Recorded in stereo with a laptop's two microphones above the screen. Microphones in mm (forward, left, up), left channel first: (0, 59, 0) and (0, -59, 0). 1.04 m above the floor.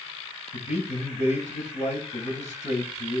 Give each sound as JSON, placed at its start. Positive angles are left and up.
{"t": 0.5, "sound": "a man speaking", "side_deg": 85, "distance_m": 6.0}